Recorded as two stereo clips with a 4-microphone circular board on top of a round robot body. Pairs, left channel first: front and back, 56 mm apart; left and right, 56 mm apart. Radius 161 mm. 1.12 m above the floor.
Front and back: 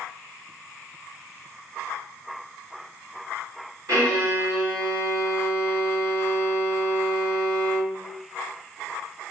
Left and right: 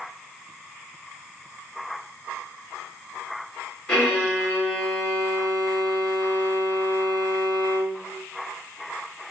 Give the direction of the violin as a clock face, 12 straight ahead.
6 o'clock.